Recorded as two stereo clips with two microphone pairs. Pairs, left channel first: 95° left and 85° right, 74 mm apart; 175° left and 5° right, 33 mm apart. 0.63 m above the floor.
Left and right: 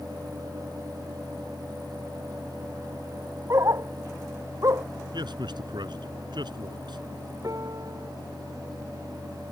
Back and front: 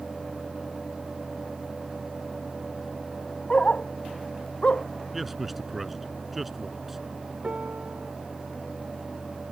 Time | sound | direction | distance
3.5 | a dog barking | 130° right | ?
5.1 | a man speaking | 90° right | ?
7.4 | a piano | 45° right | ?